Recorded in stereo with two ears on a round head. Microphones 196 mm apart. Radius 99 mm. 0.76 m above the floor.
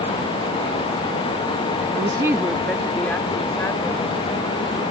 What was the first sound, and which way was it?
A woman speaking, 30° right (ahead or behind).